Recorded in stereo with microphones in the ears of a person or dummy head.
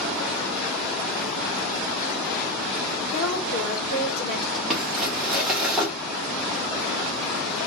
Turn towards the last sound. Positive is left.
turn(degrees=-5)  # may be behind; listen again after turning